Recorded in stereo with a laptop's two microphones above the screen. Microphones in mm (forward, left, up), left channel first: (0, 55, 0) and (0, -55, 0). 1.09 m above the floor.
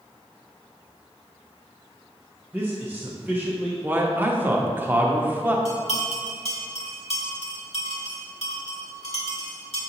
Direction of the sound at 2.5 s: 15° right (ahead or behind).